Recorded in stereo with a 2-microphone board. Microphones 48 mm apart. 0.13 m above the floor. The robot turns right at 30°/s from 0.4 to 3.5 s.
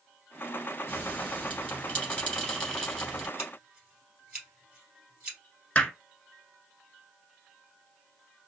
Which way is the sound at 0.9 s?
40° left (ahead or behind).